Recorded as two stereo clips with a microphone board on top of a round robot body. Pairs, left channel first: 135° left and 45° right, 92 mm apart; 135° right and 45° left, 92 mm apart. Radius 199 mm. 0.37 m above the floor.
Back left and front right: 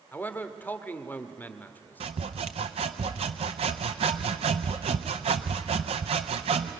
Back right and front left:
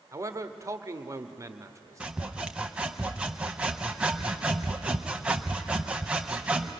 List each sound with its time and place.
0.1 s a man speaking: 75° left, 1.4 m
2.0 s sawing: 35° right, 0.5 m